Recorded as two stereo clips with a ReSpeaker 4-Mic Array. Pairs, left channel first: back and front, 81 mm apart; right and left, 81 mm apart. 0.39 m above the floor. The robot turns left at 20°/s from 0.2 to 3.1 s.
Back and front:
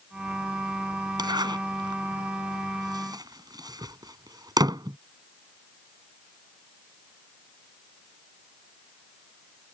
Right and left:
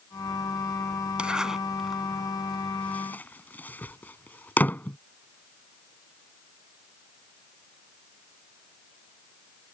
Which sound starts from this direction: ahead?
A zipper, at 1.2 s.